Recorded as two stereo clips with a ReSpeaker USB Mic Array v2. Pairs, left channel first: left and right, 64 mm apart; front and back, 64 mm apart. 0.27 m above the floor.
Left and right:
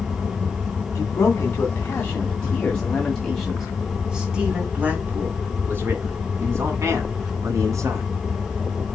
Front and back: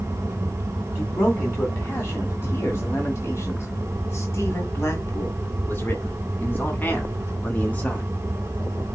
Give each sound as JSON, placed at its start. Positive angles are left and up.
{"t": 0.9, "sound": "a man speaking", "azimuth_deg": 45, "distance_m": 2.5}